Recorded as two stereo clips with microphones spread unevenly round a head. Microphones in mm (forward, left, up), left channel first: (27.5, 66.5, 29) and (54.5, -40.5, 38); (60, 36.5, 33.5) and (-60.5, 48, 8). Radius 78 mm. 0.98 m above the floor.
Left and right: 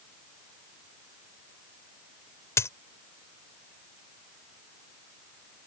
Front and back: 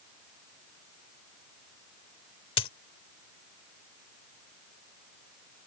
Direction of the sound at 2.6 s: 40° left.